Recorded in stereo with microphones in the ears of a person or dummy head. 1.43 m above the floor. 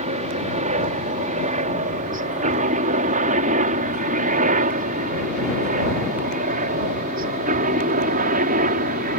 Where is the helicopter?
35° right (ahead or behind); by 9.2 s 45° right (ahead or behind).